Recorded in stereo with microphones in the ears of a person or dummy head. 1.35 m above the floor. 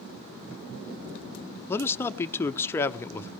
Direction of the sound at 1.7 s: 15° left (ahead or behind).